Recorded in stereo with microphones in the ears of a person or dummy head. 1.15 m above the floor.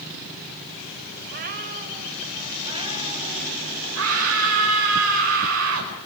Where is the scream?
80° right, 4.5 m.